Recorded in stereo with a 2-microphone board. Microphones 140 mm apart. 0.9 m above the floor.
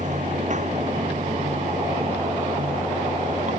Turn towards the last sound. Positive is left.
turn(degrees=-60)  # may be behind; listen again after turning